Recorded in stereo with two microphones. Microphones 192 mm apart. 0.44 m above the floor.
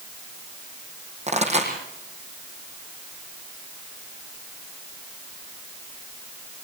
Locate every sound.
1.3 s a pop: 35° right (ahead or behind), 5.5 m